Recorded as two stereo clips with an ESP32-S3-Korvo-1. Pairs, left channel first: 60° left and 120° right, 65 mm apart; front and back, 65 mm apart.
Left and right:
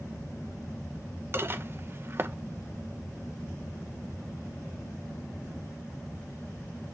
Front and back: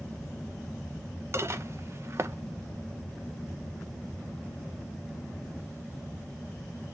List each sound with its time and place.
1.3 s dishes clattering: 155° right, 0.6 m